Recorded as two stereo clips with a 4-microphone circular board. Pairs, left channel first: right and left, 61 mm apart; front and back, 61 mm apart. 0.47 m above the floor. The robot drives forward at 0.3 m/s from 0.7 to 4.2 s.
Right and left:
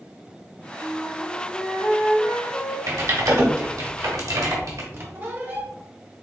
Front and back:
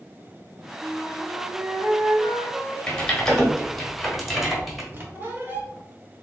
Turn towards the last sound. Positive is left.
turn(degrees=130)